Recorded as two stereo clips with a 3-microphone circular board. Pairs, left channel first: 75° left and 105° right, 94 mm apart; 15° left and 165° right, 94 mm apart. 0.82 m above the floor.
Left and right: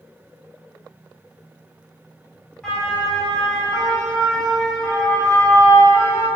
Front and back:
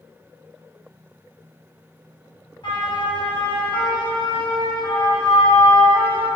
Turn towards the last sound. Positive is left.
turn(degrees=0)